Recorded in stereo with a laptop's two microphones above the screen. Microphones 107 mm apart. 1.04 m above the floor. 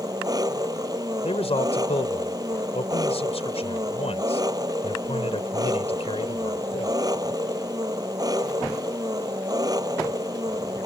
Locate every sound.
0.0 s an engine running: 35° right (ahead or behind)
1.2 s a man speaking: 70° left (ahead or behind)